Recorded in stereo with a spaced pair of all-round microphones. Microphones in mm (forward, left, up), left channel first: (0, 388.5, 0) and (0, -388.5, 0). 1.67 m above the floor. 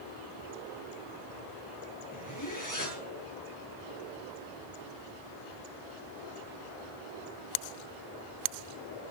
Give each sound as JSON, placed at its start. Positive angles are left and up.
{"t": 2.1, "sound": "a zipper", "side_deg": 25, "distance_m": 8.0}